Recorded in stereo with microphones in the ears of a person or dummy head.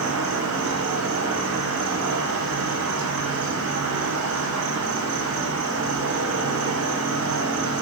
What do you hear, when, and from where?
0.0 s an insect: 75° right (ahead or behind), 1.0 m